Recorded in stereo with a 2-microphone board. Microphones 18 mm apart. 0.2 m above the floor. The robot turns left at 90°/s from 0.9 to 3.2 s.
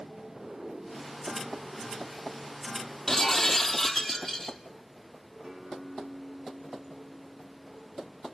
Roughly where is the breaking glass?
Left.